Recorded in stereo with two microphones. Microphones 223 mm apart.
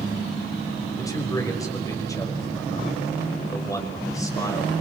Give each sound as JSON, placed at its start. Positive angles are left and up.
{"t": 1.0, "sound": "a man speaking", "side_deg": 15, "distance_m": 5.5}